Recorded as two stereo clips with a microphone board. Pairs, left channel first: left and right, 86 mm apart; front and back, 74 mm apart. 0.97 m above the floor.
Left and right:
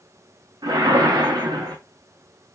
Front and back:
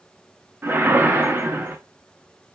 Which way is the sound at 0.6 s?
120° right.